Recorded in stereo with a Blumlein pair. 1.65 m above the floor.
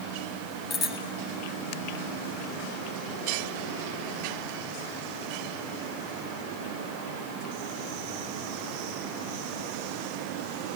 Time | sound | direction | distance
0.7 | a bicycle bell | 30° left | 2.5 m